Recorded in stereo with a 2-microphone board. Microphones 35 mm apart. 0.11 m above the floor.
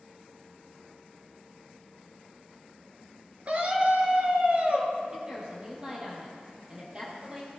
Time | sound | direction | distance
3.5 | a scream | 40° right (ahead or behind) | 1.8 m
5.1 | a woman speaking | 20° right (ahead or behind) | 3 m